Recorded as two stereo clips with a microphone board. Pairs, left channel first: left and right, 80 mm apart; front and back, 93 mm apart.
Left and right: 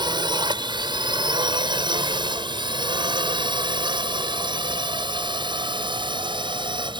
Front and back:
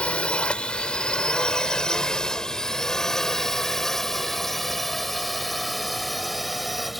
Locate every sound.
0.0 s a drone: 80° right; by 7.0 s 95° right